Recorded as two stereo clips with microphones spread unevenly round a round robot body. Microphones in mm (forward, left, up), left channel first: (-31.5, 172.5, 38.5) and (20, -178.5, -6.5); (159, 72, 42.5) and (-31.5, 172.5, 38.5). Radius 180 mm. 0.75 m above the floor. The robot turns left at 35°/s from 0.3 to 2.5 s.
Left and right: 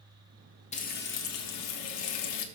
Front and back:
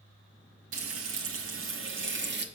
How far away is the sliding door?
I don't hear a sliding door.